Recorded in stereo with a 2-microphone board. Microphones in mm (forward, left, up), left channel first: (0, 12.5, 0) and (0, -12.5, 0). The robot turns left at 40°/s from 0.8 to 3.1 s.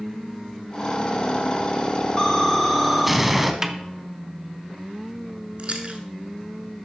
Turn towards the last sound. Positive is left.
turn(degrees=-50)  # may be behind; listen again after turning